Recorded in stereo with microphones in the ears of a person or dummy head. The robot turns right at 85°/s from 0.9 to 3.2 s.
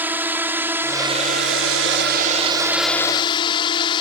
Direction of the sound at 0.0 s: 10° right (ahead or behind).